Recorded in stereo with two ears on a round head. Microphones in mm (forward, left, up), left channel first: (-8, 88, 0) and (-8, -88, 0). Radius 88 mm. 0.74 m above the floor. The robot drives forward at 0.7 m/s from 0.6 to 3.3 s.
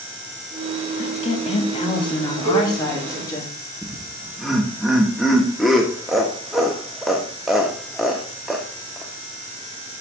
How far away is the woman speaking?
About 1.5 m.